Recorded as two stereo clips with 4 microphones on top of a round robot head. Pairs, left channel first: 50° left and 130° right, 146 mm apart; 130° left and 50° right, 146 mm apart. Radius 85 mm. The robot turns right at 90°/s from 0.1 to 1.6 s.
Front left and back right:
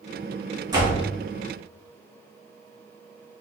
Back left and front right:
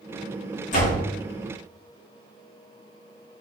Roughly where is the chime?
No chime in this recording.